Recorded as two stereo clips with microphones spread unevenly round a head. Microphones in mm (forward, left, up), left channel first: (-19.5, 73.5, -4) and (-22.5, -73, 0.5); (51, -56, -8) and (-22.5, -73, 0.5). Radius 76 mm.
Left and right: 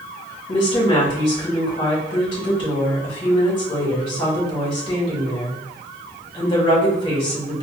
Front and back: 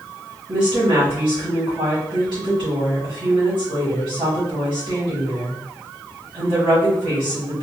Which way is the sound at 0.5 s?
145° left.